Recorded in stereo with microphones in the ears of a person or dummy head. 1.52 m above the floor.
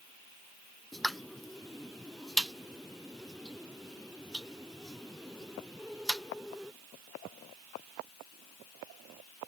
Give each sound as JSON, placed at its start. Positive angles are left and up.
{"t": 0.9, "sound": "a pop", "side_deg": 0}